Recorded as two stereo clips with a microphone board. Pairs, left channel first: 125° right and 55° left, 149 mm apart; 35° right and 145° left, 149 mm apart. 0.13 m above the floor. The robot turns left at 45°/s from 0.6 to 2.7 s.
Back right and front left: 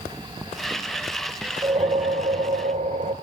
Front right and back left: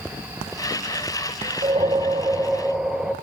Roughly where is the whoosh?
Left.